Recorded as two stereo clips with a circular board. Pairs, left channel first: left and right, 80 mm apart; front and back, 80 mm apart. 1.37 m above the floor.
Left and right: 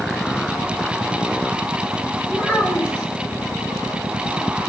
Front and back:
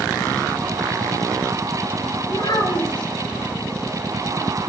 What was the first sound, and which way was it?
A child speaking, 15° left.